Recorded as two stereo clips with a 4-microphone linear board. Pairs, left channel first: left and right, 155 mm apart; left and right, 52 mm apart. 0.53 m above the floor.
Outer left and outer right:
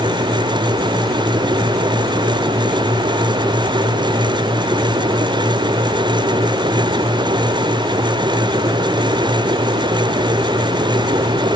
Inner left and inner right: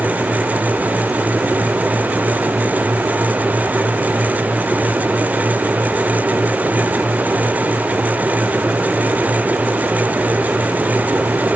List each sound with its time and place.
Only background noise.